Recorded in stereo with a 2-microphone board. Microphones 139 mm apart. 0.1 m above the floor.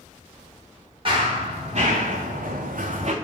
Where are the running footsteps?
40° right (ahead or behind), 1.2 m; by 3.1 s 50° right (ahead or behind), 0.6 m.